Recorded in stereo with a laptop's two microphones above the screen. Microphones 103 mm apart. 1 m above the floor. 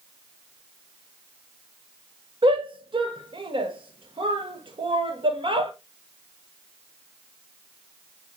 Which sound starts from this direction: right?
A shout, at 2.4 s.